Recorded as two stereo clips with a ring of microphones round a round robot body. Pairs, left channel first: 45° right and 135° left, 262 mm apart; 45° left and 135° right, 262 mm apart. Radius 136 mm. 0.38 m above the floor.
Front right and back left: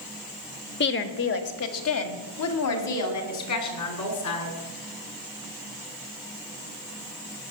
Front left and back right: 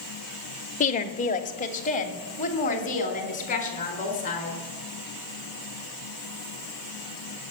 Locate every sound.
0.8 s a woman speaking: 10° right, 1.1 m; by 4.6 s 20° right, 4.5 m